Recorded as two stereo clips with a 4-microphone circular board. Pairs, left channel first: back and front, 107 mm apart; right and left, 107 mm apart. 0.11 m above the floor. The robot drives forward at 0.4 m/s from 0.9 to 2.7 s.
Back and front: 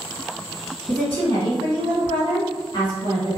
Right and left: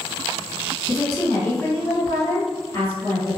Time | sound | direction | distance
0.9 | a woman speaking | 130° right | 1.8 m